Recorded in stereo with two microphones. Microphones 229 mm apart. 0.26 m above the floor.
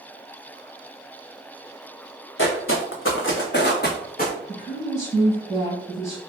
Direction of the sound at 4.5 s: 15° left (ahead or behind).